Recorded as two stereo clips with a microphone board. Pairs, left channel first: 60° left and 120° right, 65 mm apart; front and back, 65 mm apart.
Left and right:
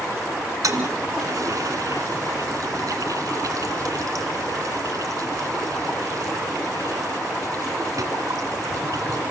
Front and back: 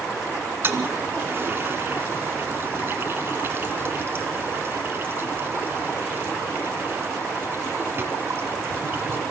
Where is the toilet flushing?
130° right, 2 m.